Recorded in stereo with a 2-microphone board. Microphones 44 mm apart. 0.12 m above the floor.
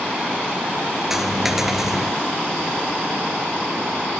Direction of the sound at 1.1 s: 5° right (ahead or behind).